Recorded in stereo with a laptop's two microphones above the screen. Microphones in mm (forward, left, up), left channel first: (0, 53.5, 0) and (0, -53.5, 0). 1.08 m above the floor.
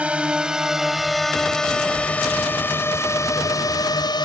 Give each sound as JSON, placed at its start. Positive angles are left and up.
{"t": 0.0, "sound": "a drone", "side_deg": -10}